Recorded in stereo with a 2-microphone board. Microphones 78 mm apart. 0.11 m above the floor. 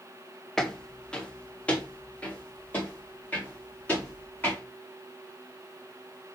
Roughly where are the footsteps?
Centre.